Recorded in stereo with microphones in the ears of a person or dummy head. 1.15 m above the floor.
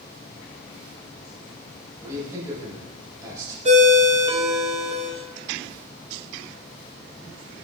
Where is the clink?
No clink in this recording.